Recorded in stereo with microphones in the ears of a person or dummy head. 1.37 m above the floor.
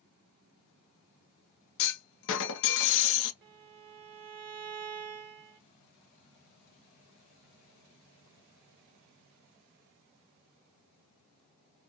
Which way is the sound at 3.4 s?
55° right (ahead or behind).